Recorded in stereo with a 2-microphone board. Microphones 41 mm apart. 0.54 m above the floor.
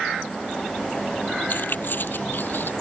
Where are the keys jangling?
55° left (ahead or behind).